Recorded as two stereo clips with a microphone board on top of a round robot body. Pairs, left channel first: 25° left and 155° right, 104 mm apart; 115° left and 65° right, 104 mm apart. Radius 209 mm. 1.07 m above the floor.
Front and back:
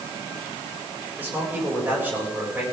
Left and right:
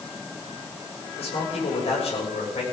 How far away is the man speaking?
About 7.5 m.